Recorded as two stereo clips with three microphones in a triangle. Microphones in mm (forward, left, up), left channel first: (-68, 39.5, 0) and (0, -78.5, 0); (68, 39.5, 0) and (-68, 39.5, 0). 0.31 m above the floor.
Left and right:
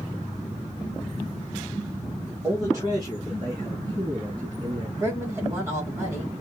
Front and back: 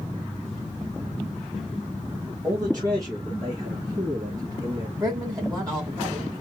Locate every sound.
2.4 s a man speaking: 125° right, 2 m; by 4.9 s 120° right, 5 m
5.0 s a woman speaking: 125° right, 2.5 m